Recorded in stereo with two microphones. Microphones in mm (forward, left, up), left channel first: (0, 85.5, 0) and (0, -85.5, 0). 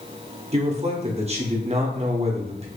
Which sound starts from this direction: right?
A man speaking, at 0.5 s.